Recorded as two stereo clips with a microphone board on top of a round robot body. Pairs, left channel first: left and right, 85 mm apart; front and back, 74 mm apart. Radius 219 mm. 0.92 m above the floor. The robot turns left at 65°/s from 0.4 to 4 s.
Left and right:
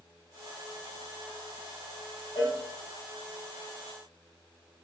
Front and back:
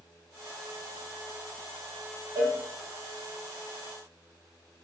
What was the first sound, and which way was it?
A cowbell, 115° left.